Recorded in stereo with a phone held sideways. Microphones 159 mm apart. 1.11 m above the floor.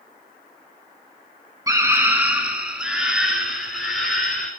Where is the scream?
20° right (ahead or behind), 1.0 m; by 4.5 s centre (ahead or behind), 3.5 m.